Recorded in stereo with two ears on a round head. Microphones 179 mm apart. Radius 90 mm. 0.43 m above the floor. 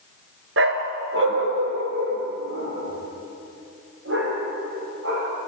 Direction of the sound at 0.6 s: 60° right (ahead or behind).